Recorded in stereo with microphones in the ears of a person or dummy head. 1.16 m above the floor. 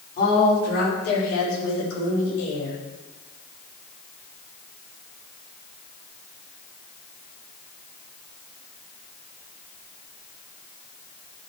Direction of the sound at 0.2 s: 45° left (ahead or behind).